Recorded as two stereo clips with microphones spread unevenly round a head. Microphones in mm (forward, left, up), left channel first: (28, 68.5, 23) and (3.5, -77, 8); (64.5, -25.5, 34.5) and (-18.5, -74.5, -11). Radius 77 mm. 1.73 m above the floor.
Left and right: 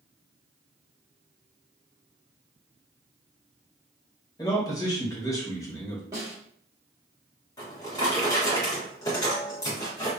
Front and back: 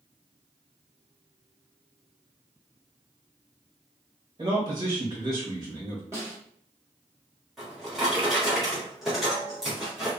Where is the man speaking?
135° left, 0.9 m.